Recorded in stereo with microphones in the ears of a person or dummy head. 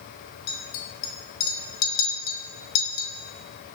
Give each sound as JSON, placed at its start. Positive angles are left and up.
{"t": 0.5, "sound": "a clink", "side_deg": 60, "distance_m": 1.5}